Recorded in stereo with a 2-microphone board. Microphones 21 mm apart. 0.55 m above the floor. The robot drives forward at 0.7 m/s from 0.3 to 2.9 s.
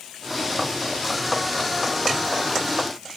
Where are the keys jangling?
No keys jangling in this recording.